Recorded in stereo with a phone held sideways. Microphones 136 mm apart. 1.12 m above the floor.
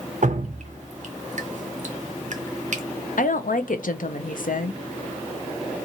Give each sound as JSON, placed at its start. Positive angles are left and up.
{"t": 0.2, "sound": "dripping", "side_deg": -60, "distance_m": 0.5}
{"t": 3.2, "sound": "a woman speaking", "side_deg": 80, "distance_m": 0.5}